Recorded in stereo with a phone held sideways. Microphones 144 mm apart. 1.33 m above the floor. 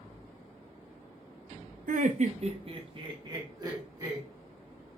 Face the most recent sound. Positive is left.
turn(degrees=-25)  # may be behind; listen again after turning